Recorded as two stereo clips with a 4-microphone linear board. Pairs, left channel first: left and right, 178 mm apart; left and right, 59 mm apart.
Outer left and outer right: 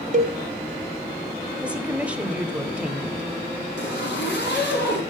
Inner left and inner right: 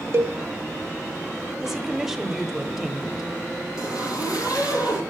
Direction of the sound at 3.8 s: 75° left (ahead or behind).